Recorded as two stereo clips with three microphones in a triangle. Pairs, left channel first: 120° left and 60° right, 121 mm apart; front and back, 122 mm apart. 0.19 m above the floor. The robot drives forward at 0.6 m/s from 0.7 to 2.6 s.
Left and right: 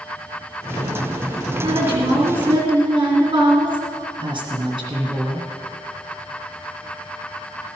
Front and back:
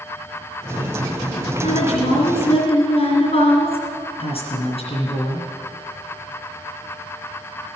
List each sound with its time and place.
1.6 s a woman speaking: 10° right, 3 m; by 5.5 s 15° right, 2.5 m